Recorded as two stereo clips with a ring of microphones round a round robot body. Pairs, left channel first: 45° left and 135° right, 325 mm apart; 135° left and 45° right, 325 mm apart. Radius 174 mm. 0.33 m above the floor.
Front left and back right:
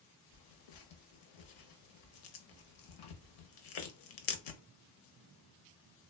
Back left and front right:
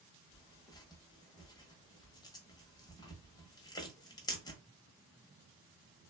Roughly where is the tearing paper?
Ahead left.